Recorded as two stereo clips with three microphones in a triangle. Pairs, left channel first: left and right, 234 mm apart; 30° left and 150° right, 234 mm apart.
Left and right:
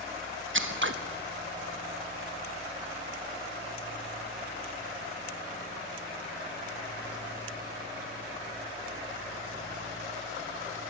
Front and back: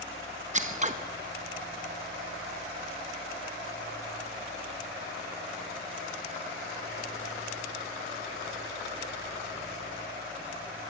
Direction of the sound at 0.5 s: 95° right.